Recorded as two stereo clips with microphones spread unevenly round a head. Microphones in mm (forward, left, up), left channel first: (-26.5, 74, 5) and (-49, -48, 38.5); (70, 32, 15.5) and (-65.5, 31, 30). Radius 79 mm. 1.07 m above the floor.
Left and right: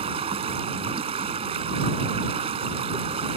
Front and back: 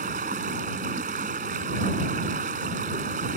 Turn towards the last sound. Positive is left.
turn(degrees=-135)